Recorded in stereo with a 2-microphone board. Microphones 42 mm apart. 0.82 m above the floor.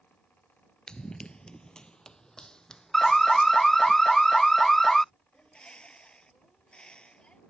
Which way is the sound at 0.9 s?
20° left (ahead or behind).